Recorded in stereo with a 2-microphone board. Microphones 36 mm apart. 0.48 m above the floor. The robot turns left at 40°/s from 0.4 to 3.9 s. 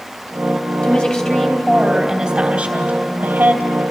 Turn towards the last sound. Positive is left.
turn(degrees=-80)